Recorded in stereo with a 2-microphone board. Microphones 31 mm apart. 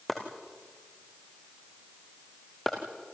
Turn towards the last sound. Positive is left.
turn(degrees=10)  # may be behind; listen again after turning